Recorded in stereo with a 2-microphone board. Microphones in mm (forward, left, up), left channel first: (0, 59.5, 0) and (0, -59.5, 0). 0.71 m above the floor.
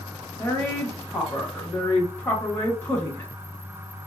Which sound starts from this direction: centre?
A woman speaking, at 0.4 s.